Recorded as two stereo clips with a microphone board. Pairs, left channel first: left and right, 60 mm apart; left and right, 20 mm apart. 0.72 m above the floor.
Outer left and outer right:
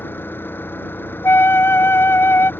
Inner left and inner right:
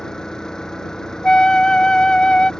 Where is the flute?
45° left (ahead or behind).